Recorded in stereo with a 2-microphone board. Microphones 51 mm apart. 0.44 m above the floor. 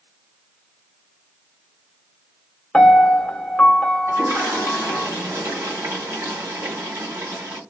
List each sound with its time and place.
2.7 s a piano: 20° left (ahead or behind), 0.7 m
4.1 s a toilet flushing: 75° right (ahead or behind), 1.6 m